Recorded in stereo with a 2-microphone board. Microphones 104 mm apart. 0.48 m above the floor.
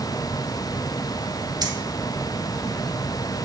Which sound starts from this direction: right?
Keys jangling, at 1.6 s.